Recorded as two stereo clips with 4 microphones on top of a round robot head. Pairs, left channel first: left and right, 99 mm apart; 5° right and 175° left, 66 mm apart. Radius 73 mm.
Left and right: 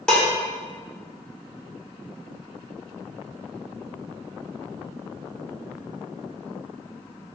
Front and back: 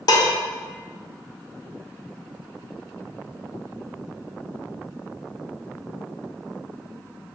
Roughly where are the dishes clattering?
Ahead.